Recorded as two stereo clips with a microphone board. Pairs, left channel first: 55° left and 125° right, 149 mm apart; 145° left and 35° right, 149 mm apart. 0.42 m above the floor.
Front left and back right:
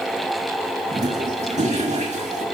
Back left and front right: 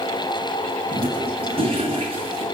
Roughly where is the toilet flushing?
Right.